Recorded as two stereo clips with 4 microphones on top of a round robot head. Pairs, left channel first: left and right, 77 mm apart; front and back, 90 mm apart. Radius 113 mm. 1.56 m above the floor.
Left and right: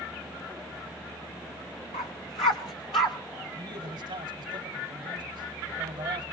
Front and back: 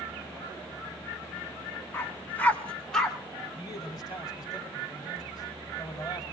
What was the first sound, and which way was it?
A dog barking, 60° left.